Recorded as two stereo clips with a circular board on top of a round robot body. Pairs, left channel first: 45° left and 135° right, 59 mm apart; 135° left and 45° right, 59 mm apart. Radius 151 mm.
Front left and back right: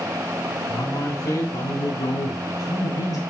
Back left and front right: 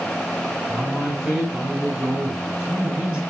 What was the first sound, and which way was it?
A man speaking, 40° left.